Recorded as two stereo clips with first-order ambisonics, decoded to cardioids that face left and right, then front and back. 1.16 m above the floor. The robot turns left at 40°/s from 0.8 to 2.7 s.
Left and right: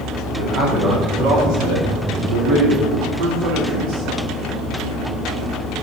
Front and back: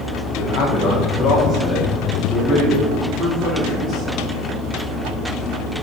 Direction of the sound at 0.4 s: 30° right.